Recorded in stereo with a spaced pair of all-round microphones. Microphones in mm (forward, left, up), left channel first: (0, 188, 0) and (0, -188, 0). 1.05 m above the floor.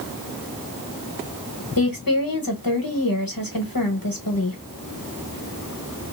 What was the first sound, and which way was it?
A woman speaking, 65° left (ahead or behind).